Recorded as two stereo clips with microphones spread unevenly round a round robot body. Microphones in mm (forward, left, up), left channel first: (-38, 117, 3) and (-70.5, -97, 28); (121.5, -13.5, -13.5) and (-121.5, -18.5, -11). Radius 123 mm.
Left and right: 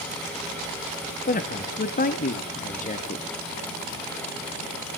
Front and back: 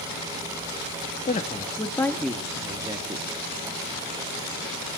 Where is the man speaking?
55° left, 1.3 m; by 3.2 s 115° left, 1.3 m.